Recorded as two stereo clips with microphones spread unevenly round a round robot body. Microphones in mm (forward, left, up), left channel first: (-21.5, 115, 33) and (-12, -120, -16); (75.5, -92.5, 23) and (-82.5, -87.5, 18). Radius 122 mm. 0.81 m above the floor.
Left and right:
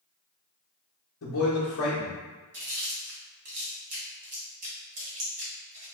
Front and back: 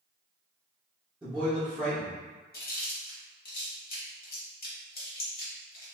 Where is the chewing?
25° right, 1.5 m.